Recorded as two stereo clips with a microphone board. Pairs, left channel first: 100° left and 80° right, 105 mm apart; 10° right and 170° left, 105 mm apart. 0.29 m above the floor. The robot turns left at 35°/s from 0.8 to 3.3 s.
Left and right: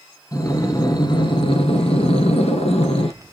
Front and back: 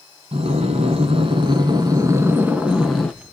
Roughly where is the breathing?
Behind left.